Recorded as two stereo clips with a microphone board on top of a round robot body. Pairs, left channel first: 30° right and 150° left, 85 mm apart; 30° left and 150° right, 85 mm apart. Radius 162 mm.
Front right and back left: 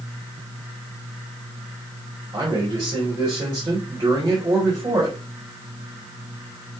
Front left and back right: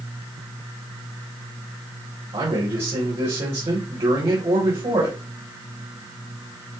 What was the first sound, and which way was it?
A man speaking, 165° right.